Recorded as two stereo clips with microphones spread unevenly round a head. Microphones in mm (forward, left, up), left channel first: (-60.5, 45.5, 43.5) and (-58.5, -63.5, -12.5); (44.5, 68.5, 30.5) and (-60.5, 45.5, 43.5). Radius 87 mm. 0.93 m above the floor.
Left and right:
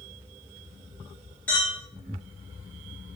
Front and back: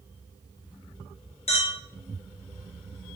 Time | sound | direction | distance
1.5 | a clink | straight ahead | 0.8 m